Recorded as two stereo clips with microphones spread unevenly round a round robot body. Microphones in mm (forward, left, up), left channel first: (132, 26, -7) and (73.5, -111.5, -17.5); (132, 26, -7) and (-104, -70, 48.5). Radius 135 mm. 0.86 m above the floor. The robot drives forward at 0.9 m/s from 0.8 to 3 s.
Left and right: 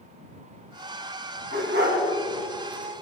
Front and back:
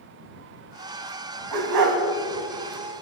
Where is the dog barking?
160° right, 2.5 m.